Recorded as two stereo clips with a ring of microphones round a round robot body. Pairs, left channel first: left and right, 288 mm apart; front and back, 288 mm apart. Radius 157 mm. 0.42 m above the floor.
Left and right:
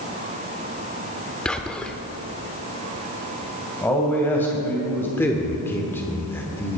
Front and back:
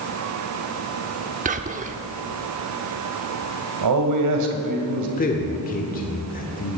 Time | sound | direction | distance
1.4 | whispering | 175° left | 0.8 m
3.8 | a man speaking | 175° left | 2.5 m
5.2 | a man speaking | 15° left | 1.3 m